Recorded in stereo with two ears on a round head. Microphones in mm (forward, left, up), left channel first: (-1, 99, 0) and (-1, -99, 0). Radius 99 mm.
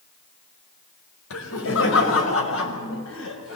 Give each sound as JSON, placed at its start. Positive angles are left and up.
{"t": 1.3, "sound": "laughter", "side_deg": 65, "distance_m": 5.0}